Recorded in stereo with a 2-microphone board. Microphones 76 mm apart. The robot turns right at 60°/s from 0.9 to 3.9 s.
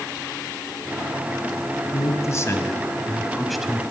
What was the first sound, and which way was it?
A man speaking, 85° left.